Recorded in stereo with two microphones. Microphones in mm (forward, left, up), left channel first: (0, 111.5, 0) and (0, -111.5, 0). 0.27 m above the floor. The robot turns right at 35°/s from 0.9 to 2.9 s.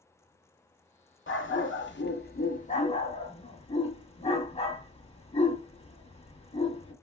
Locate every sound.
1.3 s a dog barking: 60° left (ahead or behind), 0.8 m; by 6.9 s 30° left (ahead or behind), 0.8 m